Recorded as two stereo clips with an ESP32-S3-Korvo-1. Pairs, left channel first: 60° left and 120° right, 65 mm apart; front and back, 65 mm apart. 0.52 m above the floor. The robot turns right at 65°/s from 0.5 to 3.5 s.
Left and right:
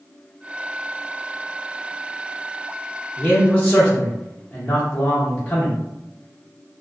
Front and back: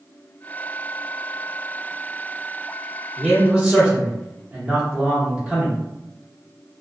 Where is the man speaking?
100° left, 0.8 m; by 5.8 s 125° left, 0.8 m.